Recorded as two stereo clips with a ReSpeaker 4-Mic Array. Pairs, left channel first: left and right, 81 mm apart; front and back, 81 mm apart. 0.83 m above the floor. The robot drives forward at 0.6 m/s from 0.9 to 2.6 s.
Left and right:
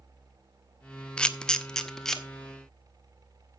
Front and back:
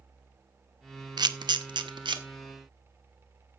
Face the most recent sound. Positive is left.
turn(degrees=175)